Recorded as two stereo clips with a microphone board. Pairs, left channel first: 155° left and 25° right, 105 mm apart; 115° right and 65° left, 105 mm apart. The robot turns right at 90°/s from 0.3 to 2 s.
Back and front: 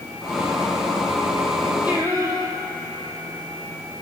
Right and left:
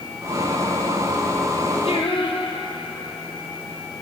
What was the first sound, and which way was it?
Singing, 100° right.